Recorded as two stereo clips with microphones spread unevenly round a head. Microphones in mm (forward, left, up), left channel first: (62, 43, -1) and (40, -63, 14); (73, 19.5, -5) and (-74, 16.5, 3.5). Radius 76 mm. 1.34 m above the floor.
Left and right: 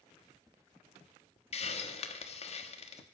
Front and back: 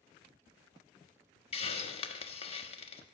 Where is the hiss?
50° left, 1.3 m.